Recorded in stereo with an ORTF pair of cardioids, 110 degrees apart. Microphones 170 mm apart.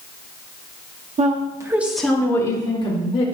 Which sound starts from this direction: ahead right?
A woman speaking, at 1.2 s.